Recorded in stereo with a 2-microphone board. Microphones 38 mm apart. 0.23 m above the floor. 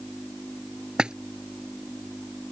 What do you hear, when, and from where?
1.0 s a splash: 25° right (ahead or behind)